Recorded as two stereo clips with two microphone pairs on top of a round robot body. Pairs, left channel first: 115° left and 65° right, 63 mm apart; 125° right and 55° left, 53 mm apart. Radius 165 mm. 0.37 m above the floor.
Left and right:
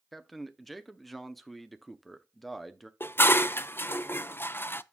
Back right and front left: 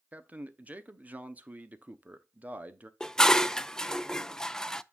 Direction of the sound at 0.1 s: 10° left.